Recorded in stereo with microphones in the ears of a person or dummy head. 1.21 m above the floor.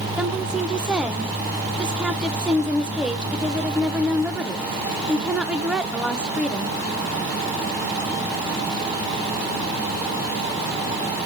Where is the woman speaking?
10° right (ahead or behind), 0.7 m.